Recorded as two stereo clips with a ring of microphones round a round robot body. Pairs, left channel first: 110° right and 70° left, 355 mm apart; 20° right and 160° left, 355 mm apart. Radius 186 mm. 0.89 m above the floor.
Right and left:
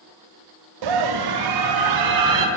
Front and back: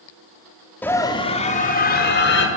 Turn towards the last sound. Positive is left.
turn(degrees=35)